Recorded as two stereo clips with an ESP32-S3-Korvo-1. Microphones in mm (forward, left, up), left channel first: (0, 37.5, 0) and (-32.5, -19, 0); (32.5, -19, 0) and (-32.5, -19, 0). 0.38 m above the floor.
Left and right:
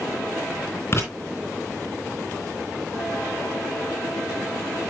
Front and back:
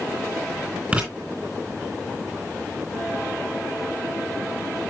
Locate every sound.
0.9 s writing: 110° left, 4 m